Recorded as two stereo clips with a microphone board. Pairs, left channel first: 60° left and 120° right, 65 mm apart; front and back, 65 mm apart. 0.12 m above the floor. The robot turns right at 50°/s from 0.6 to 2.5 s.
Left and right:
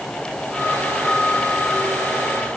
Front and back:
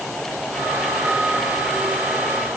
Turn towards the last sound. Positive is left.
No sound to turn to.